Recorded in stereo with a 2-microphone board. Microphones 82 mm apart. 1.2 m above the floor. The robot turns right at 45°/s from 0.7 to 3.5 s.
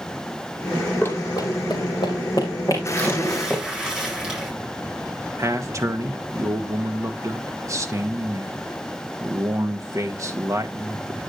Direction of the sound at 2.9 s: 25° left (ahead or behind).